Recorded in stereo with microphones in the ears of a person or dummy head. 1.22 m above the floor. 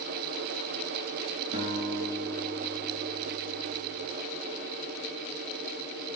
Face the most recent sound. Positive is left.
turn(degrees=-35)  # may be behind; listen again after turning